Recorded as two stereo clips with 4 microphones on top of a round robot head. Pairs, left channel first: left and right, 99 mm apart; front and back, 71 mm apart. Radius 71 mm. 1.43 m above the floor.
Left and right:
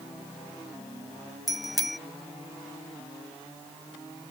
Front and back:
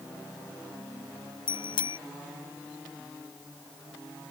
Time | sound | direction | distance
1.5 | a bicycle bell | straight ahead | ?